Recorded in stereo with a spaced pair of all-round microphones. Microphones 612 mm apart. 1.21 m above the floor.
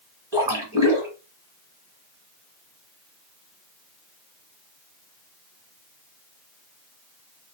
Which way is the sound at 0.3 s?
5° right (ahead or behind).